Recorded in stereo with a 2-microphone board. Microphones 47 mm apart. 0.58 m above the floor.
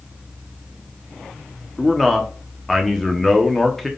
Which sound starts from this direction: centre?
A man speaking, at 1.8 s.